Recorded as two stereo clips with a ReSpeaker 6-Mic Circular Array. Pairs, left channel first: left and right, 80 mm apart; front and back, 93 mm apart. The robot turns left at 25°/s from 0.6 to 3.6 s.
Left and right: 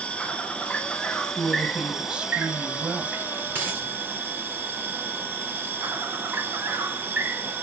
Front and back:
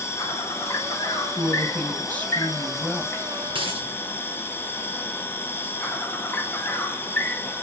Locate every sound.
0.0 s an insect: 30° left, 1.4 m; by 7.6 s 45° right, 1.4 m
1.4 s a woman speaking: 20° right, 1.0 m; by 3.2 s 65° right, 1.0 m
3.5 s a dropped coin: 155° right, 3.5 m